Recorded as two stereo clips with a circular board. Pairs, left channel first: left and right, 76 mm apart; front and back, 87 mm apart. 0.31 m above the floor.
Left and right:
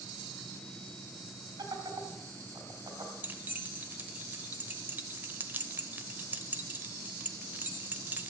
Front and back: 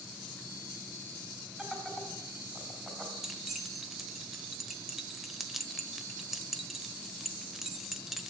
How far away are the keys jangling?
About 0.9 m.